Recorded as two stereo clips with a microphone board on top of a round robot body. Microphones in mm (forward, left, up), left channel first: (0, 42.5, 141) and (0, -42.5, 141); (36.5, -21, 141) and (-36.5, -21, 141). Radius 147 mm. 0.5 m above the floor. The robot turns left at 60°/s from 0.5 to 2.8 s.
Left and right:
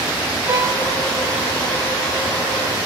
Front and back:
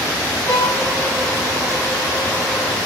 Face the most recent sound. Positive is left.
turn(degrees=170)